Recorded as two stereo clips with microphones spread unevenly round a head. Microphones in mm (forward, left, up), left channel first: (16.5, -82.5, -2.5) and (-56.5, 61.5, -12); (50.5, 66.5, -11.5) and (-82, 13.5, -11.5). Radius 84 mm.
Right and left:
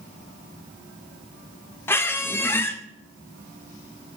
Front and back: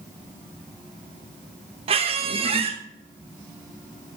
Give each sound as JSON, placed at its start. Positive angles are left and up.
{"t": 1.9, "sound": "a squeak", "azimuth_deg": -130, "distance_m": 0.9}